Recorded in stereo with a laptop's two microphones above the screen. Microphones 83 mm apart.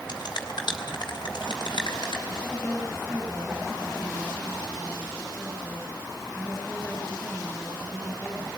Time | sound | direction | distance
0.1 | a finger snap | 60° left (ahead or behind) | 3 m
2.3 | a woman speaking | centre (ahead or behind) | 5.5 m